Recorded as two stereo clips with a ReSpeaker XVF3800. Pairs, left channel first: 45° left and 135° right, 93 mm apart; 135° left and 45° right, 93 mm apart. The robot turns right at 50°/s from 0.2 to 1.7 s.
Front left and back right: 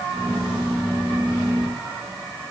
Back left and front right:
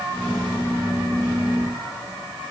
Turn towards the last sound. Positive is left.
No sound to turn to.